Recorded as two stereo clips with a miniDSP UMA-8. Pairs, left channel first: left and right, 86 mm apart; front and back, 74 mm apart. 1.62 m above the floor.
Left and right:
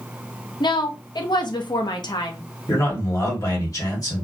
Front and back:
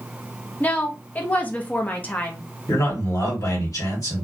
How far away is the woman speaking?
About 0.6 m.